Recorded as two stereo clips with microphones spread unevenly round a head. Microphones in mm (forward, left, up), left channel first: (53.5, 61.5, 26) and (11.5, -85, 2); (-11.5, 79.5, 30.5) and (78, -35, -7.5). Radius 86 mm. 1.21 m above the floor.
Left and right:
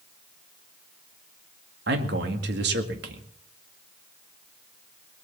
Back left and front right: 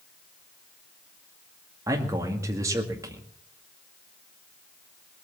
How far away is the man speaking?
About 2 m.